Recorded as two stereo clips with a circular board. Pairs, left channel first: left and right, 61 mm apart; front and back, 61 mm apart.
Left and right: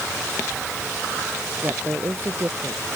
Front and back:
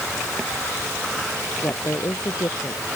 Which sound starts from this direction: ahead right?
A woman speaking, at 1.6 s.